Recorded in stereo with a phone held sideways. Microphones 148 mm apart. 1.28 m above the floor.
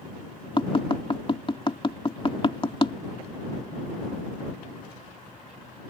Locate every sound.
0.6 s tapping: 35° left (ahead or behind)